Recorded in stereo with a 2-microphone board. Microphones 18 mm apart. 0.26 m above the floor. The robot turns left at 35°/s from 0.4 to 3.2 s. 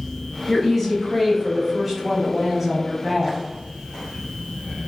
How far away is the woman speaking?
About 1.2 m.